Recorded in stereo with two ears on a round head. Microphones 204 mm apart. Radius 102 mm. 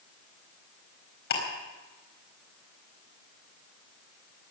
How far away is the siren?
No siren in this recording.